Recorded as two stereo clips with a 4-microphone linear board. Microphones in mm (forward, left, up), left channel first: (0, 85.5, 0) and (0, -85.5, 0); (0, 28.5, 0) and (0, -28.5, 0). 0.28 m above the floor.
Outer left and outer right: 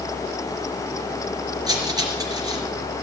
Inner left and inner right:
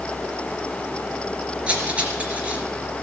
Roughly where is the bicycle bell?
No bicycle bell in this recording.